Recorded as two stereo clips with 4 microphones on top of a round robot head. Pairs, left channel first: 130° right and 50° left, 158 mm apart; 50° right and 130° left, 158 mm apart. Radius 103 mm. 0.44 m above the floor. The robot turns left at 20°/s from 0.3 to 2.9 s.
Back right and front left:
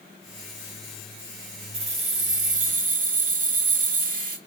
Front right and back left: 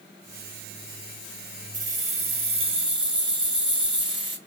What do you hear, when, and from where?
1.7 s keys jangling: 100° left, 1.9 m; by 4.4 s 75° left, 1.9 m